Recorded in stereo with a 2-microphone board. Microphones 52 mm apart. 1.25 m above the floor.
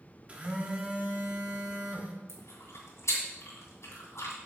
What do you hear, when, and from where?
0.3 s a phone buzzing: 25° right (ahead or behind), 1.0 m
2.3 s chewing: 65° left (ahead or behind), 2.5 m